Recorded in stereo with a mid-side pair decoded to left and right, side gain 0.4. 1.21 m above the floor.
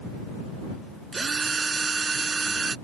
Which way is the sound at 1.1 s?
40° right.